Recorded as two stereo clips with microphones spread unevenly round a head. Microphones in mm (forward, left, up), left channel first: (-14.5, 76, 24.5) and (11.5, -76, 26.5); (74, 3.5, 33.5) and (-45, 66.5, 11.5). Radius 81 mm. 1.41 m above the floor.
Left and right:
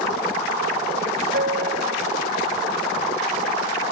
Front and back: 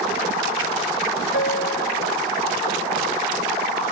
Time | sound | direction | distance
1.3 | a piano | 40° right | ?